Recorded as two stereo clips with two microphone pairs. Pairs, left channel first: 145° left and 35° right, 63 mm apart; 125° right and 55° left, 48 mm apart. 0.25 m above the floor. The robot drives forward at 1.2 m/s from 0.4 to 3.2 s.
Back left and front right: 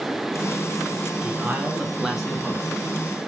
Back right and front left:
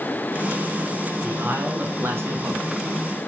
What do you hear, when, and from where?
1.2 s a man speaking: 25° left, 2.5 m; by 2.7 s 70° left, 1.5 m